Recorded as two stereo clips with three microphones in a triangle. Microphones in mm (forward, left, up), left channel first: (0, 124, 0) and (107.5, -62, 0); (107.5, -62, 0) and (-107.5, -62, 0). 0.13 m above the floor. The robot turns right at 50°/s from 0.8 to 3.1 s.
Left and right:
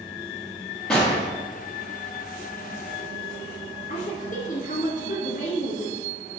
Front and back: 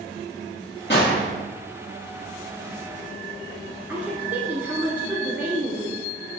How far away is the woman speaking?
About 1.4 m.